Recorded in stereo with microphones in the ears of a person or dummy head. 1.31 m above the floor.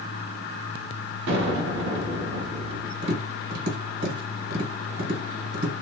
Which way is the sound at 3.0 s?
55° right (ahead or behind).